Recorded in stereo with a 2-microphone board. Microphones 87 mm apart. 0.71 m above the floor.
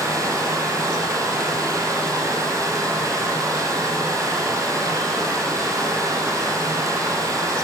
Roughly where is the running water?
Right.